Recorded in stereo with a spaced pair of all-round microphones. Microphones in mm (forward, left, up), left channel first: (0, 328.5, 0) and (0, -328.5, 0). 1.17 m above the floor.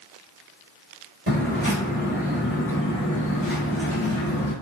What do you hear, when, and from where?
1.3 s footsteps: 15° right (ahead or behind), 1.3 m; by 4.5 s 25° left (ahead or behind), 1.4 m